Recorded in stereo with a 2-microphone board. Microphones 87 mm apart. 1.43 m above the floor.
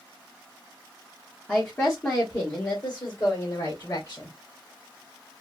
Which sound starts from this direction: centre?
A woman speaking, at 1.5 s.